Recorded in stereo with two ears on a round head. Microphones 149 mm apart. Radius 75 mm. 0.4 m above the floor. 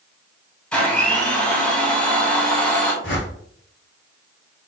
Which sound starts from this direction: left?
A whoosh, at 3.0 s.